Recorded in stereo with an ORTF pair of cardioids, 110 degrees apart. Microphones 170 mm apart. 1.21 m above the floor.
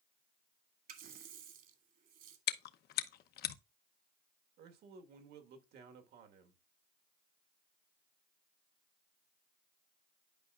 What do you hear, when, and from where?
0.9 s a running tap: 60° right, 1.8 m
2.5 s chewing: 65° left, 0.7 m
4.6 s a man speaking: 70° right, 1.6 m